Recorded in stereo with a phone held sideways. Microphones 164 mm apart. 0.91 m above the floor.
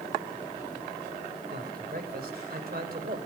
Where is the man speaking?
65° right (ahead or behind), 3.5 m.